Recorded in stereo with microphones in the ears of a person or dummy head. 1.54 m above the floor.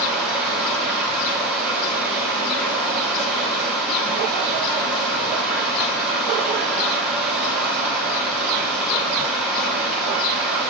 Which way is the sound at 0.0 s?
Centre (ahead or behind).